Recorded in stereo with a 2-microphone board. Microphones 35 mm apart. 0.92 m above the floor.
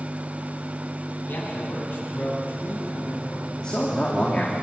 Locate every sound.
1.3 s a man speaking: 80° left, 6.5 m; by 3.5 s 85° left, 8 m
3.6 s a man speaking: 25° left (ahead or behind), 2.5 m